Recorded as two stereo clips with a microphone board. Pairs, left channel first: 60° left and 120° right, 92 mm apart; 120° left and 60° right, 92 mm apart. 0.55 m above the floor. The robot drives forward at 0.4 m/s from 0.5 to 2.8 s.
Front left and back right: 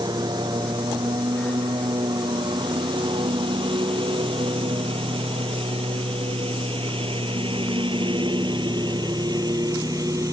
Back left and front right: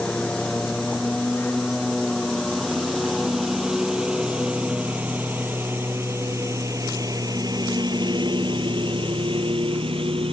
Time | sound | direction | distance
0.0 | a lawn mower | 160° right | ?